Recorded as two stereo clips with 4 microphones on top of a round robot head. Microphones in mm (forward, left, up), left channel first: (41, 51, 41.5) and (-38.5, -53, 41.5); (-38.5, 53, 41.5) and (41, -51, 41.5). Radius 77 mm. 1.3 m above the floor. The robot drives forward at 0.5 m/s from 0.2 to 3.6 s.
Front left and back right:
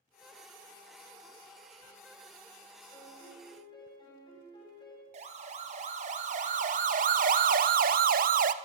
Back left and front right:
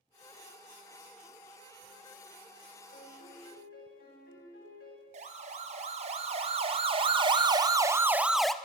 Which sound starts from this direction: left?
A piano, at 2.9 s.